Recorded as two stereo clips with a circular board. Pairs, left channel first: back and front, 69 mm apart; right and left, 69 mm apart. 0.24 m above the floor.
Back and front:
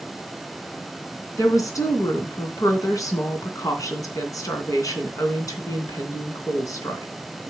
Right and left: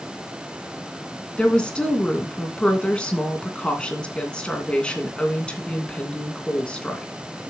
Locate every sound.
1.4 s a woman speaking: 165° right, 2.5 m